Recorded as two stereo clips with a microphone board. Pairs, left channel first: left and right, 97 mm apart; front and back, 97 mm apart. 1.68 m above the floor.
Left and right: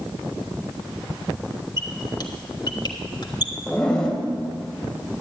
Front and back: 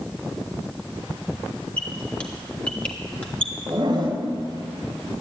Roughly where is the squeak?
Left.